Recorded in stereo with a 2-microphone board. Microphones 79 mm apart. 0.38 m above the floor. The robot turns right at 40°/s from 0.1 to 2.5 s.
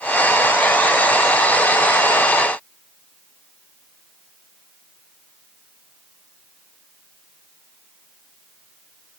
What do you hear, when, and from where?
Only background noise.